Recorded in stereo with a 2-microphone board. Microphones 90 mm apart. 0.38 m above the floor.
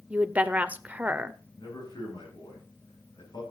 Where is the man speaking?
55° left (ahead or behind), 10 m.